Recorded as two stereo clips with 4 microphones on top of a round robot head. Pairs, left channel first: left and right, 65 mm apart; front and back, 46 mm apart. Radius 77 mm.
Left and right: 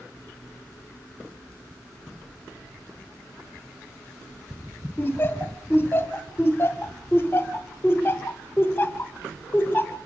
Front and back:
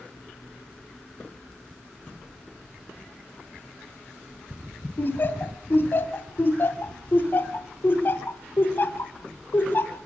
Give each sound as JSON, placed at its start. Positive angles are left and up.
{"t": 5.0, "sound": "laughter", "azimuth_deg": 30, "distance_m": 1.7}